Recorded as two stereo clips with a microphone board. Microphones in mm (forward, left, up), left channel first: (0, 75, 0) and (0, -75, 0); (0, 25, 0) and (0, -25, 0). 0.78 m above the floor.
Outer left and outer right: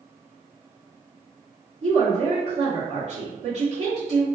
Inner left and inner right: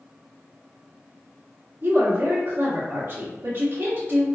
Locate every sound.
1.8 s a woman speaking: 50° right (ahead or behind), 1.6 m